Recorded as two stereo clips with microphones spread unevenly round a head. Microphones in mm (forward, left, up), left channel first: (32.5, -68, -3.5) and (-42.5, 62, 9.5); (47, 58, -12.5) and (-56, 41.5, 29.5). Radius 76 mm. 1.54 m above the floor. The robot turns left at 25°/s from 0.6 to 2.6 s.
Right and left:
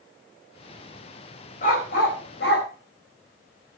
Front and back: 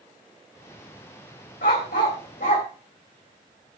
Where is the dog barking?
15° right, 3.5 m; by 2.7 s 40° right, 3.5 m.